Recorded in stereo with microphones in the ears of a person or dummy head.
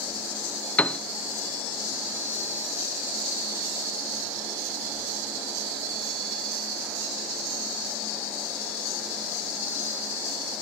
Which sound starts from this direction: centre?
A piano, at 0.8 s.